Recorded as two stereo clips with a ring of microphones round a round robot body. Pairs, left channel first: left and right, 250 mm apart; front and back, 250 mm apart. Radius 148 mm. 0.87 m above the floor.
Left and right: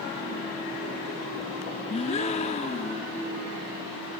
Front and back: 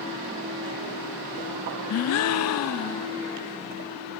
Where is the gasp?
20° left, 0.6 m.